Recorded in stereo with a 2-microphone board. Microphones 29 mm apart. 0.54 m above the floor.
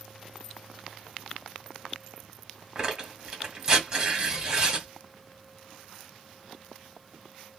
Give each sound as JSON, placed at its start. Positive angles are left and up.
{"t": 2.8, "sound": "tearing paper", "side_deg": -25, "distance_m": 1.5}